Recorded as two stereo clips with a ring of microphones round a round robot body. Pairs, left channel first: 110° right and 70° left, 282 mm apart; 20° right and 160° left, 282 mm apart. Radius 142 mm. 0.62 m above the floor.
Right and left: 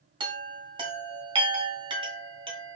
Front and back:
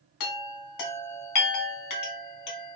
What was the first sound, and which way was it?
A chime, 5° right.